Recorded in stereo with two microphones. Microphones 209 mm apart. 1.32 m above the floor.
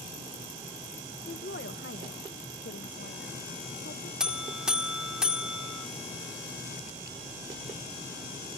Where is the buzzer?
5° right (ahead or behind).